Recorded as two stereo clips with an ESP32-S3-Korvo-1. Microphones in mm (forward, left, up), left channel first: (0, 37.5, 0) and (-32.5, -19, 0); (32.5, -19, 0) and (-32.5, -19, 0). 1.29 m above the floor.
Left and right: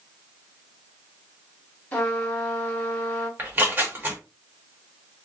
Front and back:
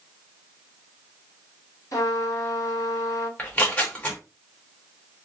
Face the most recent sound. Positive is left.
turn(degrees=-65)